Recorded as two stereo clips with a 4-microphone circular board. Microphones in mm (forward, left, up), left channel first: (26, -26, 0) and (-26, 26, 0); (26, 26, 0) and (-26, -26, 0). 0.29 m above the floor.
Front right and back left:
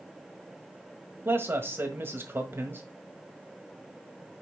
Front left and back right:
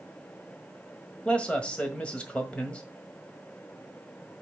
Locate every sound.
1.2 s a man speaking: 110° left, 1.6 m